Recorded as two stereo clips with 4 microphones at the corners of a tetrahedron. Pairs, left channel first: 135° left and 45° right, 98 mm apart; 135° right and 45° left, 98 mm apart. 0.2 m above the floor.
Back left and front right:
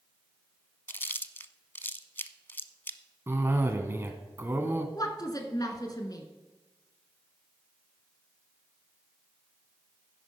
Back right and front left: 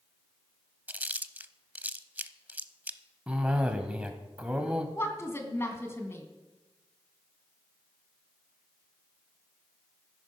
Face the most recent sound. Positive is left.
turn(degrees=170)